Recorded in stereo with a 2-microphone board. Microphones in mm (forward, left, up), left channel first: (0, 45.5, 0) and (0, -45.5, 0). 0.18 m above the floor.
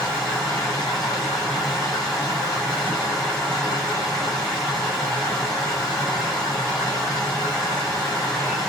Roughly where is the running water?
Centre.